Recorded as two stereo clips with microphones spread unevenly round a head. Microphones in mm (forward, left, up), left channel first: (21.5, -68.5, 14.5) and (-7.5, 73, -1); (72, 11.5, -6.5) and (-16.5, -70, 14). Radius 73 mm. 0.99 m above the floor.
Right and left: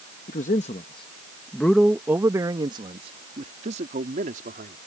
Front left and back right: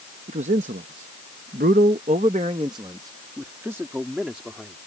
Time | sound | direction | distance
0.3 | a man speaking | 115° right | ?